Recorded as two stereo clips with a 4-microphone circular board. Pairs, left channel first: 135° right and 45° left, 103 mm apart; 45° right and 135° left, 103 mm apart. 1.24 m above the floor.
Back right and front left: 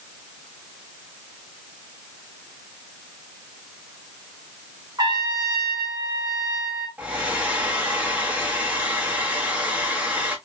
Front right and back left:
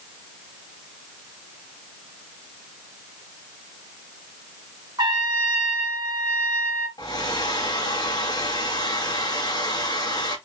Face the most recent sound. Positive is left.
turn(degrees=-25)